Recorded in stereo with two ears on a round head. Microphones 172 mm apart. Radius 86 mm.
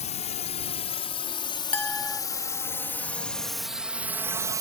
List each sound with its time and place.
0.0 s a drone: 35° left (ahead or behind); by 4.6 s 20° right (ahead or behind)
1.7 s a clink: 5° left (ahead or behind)